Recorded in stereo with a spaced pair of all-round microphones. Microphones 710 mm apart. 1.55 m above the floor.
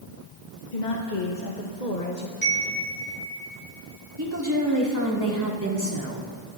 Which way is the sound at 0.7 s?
85° left.